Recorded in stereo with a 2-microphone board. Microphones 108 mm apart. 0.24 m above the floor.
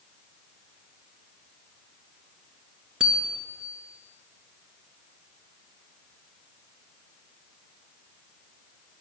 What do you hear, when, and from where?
3.0 s a bicycle bell: 5° right (ahead or behind), 2.5 m